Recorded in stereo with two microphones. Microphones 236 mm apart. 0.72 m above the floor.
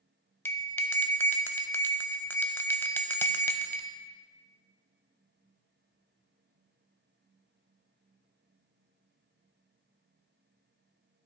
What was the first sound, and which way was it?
A bell, 10° left (ahead or behind).